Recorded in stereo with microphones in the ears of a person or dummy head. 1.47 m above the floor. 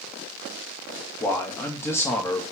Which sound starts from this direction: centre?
A man speaking, at 1.2 s.